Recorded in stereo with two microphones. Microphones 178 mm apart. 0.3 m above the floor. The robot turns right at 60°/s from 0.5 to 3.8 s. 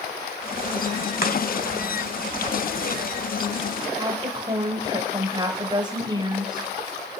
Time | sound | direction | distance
1.2 | chopping | 60° left (ahead or behind) | 1.4 m
4.0 | a woman speaking | 25° right (ahead or behind) | 1.0 m